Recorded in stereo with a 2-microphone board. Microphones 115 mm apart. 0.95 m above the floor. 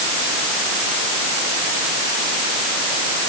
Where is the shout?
I don't hear a shout.